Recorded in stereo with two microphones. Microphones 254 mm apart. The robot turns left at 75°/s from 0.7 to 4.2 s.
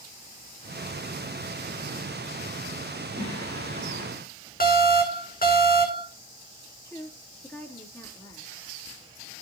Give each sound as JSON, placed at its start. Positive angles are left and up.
{"t": 3.2, "sound": "singing", "azimuth_deg": -85, "distance_m": 9.0}
{"t": 4.6, "sound": "an alarm", "side_deg": 35, "distance_m": 3.0}
{"t": 6.8, "sound": "a woman speaking", "side_deg": 10, "distance_m": 4.0}